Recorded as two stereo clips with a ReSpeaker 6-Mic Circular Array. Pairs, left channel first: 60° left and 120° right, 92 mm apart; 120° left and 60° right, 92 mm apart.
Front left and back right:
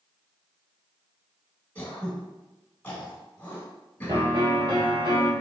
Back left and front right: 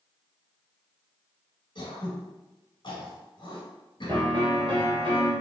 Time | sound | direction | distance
1.8 | throat clearing | 125° left | 1.5 m
4.1 | a piano | 85° right | 2.0 m